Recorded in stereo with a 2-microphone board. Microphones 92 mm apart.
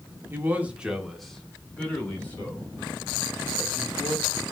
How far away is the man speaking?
About 0.8 m.